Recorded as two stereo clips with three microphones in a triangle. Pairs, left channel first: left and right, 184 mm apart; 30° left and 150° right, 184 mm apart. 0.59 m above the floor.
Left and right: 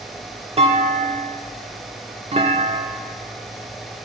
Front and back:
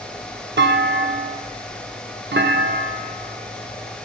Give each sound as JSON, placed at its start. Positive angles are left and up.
{"t": 0.6, "sound": "a clunk", "azimuth_deg": -145, "distance_m": 0.7}